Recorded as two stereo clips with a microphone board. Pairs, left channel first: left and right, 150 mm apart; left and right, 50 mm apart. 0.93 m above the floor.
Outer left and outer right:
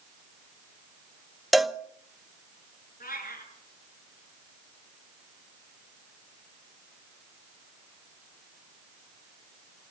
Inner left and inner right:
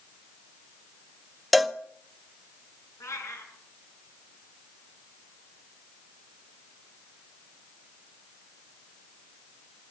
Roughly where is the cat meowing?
Left.